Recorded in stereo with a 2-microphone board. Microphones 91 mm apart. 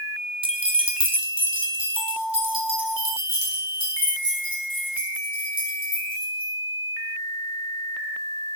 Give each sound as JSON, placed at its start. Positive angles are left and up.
{"t": 0.4, "sound": "keys jangling", "side_deg": -75, "distance_m": 0.5}